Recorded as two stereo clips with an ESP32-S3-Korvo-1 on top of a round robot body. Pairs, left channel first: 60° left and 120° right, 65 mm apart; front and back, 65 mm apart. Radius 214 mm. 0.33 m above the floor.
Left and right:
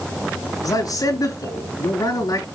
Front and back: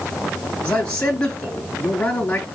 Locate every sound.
0.6 s a man speaking: 70° left, 8 m